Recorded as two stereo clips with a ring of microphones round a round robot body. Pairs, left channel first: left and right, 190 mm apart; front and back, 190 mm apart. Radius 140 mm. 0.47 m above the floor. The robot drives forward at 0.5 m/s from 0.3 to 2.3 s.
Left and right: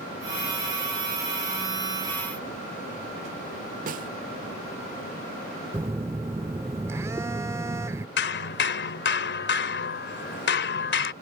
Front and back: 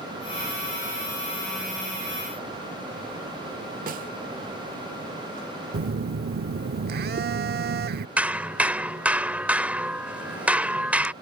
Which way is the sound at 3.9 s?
135° right.